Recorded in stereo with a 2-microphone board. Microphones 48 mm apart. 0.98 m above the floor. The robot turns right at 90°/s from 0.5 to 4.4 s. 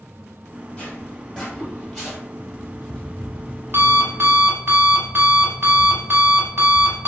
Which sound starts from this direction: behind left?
An alarm clock, at 2.4 s.